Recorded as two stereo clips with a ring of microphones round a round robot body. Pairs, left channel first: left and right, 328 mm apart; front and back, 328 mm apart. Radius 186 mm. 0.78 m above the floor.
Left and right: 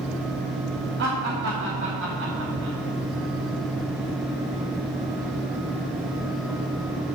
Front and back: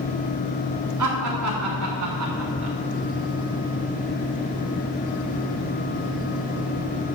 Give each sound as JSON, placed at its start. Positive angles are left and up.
{"t": 1.0, "sound": "laughter", "azimuth_deg": -150, "distance_m": 2.0}